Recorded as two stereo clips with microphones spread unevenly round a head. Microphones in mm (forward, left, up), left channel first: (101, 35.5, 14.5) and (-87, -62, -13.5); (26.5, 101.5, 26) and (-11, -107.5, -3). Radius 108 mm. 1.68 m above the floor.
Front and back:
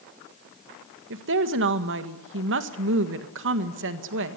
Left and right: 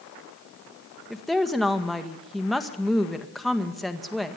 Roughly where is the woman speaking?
Behind.